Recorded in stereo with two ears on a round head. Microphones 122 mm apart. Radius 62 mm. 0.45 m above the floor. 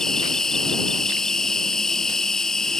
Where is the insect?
5° left (ahead or behind).